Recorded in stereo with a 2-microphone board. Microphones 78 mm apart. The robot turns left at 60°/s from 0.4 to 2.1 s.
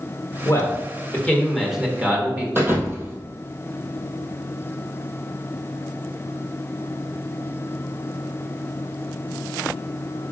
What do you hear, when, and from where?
0.5 s a man speaking: 70° left, 1.7 m; by 2.5 s 30° right, 1.7 m
2.5 s a thud: 30° right (ahead or behind), 1.6 m